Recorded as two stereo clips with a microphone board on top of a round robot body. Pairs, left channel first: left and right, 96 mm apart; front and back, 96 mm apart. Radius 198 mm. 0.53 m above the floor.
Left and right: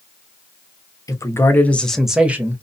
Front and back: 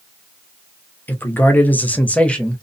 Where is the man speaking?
60° left, 1.1 m; by 2.6 s 70° right, 1.0 m.